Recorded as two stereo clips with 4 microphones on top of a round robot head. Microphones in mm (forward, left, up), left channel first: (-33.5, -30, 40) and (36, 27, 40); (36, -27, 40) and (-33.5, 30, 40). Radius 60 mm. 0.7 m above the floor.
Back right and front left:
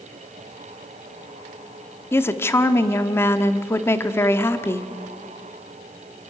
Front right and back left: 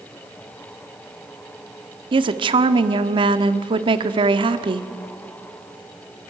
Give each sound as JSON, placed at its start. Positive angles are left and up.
{"t": 2.1, "sound": "a woman speaking", "azimuth_deg": 155, "distance_m": 1.4}